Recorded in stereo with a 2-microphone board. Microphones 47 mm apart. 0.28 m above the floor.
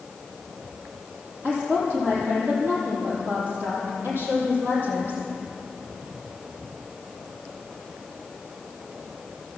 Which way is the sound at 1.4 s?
35° right (ahead or behind).